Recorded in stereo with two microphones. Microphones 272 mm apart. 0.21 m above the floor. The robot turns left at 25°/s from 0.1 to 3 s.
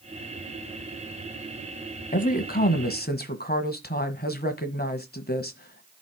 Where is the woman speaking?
30° left (ahead or behind), 1.4 m; by 6.0 s 35° left (ahead or behind), 1.4 m.